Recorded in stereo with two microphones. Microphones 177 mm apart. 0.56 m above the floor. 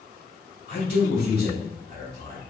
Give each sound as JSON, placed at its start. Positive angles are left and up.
{"t": 0.7, "sound": "a man speaking", "side_deg": 70, "distance_m": 2.0}